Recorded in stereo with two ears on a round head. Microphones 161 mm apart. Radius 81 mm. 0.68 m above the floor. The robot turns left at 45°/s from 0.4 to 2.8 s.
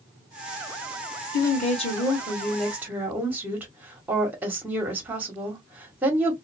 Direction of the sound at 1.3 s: 55° left.